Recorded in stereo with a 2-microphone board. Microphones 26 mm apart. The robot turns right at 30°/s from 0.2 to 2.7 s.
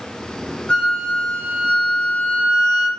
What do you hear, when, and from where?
0.7 s a flute: 45° left, 0.6 m; by 2.9 s 105° left, 0.6 m